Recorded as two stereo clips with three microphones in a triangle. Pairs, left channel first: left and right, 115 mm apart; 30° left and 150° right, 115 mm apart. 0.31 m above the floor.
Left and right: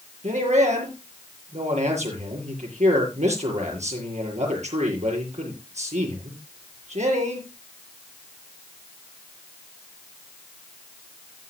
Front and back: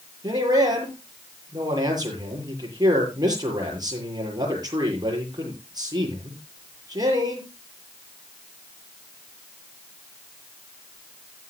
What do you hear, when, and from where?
0.2 s a man speaking: 95° right, 7 m